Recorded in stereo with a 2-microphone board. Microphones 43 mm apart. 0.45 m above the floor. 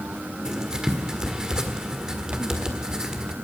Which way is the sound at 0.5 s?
15° right (ahead or behind).